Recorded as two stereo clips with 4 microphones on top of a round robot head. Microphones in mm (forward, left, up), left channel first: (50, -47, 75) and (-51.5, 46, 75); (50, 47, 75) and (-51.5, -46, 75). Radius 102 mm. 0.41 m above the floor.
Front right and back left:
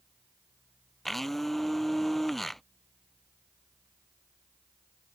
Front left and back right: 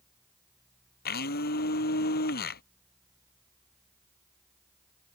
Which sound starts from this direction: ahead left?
A blender, at 1.1 s.